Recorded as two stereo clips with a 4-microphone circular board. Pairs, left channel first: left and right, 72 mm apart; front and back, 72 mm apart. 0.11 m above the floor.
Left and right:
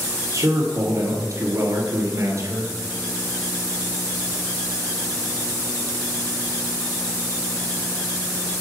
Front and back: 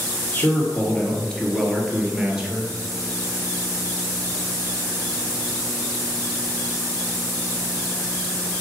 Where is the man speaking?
60° right, 2 m; by 2.7 s 110° right, 1.9 m.